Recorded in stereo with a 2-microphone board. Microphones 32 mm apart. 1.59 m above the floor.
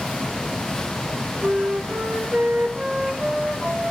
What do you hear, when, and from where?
1.4 s a flute: 40° right (ahead or behind), 1.5 m